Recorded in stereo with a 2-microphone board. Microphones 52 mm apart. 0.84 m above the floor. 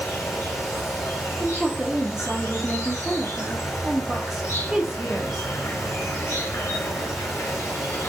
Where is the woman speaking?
10° right (ahead or behind), 0.7 m.